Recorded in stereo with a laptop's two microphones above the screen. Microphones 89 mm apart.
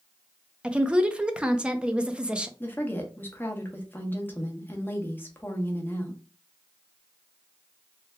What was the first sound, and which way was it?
A woman speaking, 10° right (ahead or behind).